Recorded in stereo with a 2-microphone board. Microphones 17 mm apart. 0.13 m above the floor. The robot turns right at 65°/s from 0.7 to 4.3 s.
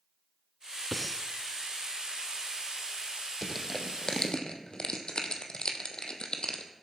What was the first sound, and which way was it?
Breathing, 5° left (ahead or behind).